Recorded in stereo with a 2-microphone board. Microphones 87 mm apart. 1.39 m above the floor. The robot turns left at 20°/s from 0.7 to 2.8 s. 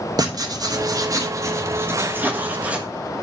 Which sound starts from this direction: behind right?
Writing, at 0.2 s.